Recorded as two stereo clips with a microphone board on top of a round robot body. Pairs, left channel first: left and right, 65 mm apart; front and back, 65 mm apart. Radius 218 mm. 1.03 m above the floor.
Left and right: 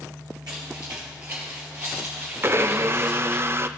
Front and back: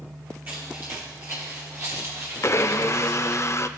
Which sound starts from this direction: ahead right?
A blender, at 2.4 s.